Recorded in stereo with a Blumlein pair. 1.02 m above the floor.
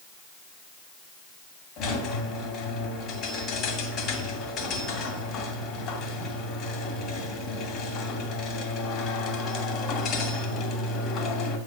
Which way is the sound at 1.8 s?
35° left.